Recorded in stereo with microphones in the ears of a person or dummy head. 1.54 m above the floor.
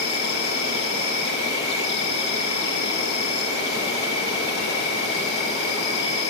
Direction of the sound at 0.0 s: 55° left (ahead or behind).